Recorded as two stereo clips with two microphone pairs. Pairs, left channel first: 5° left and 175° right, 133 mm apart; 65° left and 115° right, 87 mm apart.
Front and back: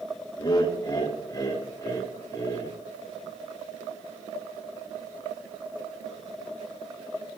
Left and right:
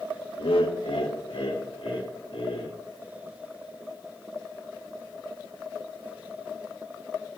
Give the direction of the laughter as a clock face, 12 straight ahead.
10 o'clock.